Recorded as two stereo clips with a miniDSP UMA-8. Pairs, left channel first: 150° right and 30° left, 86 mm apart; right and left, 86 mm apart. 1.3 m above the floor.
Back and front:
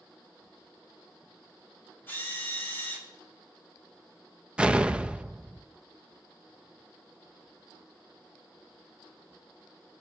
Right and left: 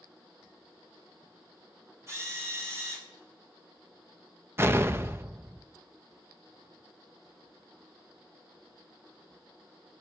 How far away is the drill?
About 3.5 m.